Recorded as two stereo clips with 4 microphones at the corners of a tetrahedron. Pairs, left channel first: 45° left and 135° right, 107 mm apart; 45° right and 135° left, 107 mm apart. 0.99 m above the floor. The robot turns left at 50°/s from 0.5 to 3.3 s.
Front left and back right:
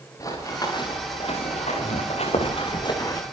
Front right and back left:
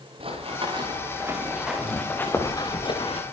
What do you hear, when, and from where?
0.2 s running footsteps: 105° left, 9.5 m; by 3.2 s 15° right, 5.5 m